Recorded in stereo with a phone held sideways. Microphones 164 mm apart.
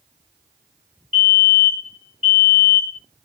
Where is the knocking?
I don't hear knocking.